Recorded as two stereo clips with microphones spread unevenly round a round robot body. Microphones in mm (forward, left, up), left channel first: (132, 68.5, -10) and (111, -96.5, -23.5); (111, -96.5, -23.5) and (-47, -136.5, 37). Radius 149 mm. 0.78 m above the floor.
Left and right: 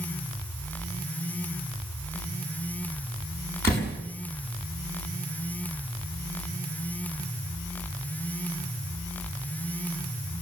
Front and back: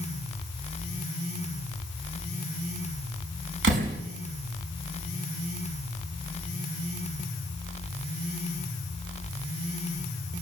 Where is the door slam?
165° left, 5.5 m.